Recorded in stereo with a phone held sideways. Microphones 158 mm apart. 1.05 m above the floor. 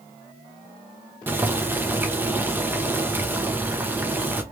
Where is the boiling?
10° right (ahead or behind), 0.8 m.